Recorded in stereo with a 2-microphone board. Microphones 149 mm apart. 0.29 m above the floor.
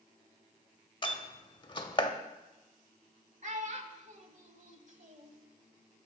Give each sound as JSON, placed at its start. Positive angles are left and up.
{"t": 1.0, "sound": "a door slam", "side_deg": 35, "distance_m": 0.8}
{"t": 3.4, "sound": "a child speaking", "side_deg": -55, "distance_m": 1.2}